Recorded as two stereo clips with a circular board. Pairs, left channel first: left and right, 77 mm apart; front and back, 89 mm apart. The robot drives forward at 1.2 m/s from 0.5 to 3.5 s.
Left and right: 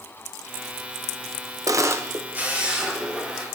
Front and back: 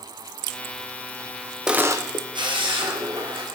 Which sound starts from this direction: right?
A camera shutter, at 1.7 s.